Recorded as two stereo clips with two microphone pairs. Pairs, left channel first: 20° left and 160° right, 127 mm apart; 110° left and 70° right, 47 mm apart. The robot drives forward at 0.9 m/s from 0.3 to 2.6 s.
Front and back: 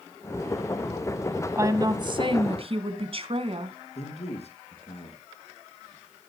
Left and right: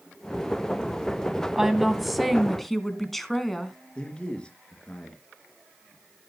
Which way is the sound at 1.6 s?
140° right.